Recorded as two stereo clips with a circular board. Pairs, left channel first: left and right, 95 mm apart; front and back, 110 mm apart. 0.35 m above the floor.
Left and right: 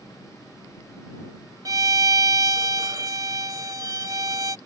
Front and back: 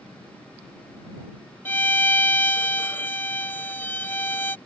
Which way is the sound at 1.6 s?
65° right.